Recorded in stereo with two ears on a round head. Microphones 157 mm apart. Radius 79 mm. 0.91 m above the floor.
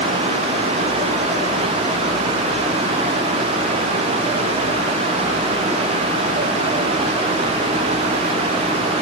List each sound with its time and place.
Only background noise.